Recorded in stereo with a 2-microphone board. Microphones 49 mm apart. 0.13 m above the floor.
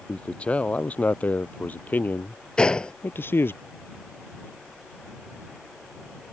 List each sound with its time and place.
0.1 s a man speaking: 25° left (ahead or behind); by 3.6 s 50° left (ahead or behind)
2.6 s a gunshot: 20° left (ahead or behind)